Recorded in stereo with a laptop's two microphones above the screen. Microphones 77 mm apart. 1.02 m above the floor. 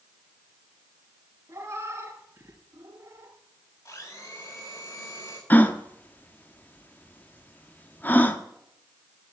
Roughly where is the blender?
Left.